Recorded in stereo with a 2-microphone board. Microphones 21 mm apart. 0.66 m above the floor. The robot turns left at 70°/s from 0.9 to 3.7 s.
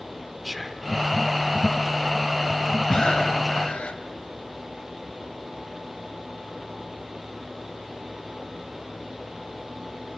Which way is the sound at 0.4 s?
10° right (ahead or behind).